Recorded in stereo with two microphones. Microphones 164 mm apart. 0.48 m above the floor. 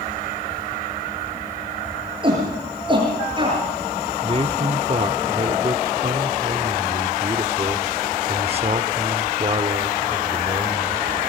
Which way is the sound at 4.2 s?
35° right (ahead or behind).